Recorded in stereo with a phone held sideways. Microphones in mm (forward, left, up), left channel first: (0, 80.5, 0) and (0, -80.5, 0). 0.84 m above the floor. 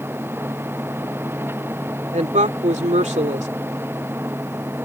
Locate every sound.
0.0 s a machine running: 15° right (ahead or behind)
2.1 s a woman speaking: 50° right (ahead or behind)